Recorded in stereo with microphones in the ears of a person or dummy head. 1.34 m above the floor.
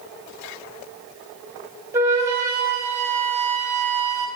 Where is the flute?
15° right (ahead or behind), 0.8 m.